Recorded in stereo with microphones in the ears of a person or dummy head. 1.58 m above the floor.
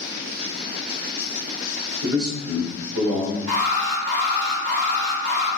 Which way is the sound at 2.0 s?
70° right (ahead or behind).